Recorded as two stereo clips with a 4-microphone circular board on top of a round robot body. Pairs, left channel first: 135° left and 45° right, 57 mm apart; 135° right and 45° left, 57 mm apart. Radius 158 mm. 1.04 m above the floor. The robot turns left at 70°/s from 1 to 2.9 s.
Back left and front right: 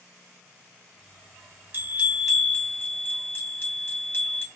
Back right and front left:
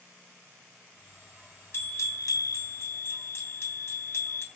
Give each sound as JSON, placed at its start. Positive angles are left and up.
{"t": 1.7, "sound": "a bell", "azimuth_deg": -95, "distance_m": 3.5}